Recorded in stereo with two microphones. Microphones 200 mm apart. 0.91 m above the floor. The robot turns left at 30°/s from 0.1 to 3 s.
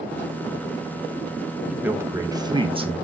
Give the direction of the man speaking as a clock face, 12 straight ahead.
12 o'clock.